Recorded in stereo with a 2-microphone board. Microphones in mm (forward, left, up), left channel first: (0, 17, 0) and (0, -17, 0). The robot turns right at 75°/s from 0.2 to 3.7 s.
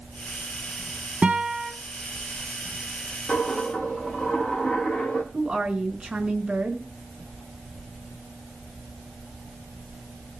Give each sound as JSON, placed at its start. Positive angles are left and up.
{"t": 1.2, "sound": "a guitar", "azimuth_deg": -50, "distance_m": 2.5}
{"t": 3.3, "sound": "a dropped coin", "azimuth_deg": 130, "distance_m": 7.0}
{"t": 5.3, "sound": "a woman speaking", "side_deg": -25, "distance_m": 4.0}